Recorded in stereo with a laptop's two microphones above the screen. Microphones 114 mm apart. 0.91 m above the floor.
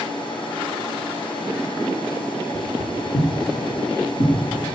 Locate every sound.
0.0 s a machine running: 45° left (ahead or behind), 4 m
2.5 s footsteps: 45° left (ahead or behind), 4.5 m; by 4.5 s 50° left (ahead or behind), 3.5 m